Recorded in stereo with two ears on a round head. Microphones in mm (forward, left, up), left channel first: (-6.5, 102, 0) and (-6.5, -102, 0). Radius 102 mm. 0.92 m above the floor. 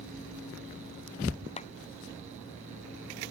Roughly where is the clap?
Left.